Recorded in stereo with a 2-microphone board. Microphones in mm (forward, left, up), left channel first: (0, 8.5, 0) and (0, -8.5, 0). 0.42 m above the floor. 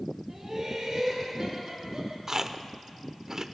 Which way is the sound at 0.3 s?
20° right (ahead or behind).